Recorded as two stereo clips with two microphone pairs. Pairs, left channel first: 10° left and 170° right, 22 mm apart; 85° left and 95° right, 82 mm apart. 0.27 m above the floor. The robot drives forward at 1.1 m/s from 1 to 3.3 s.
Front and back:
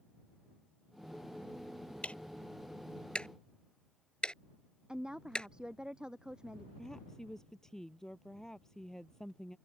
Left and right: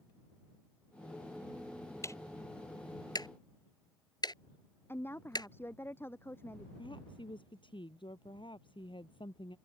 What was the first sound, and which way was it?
Ticking, 30° left.